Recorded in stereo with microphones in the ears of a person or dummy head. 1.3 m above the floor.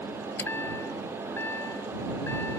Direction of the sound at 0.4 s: 15° left (ahead or behind).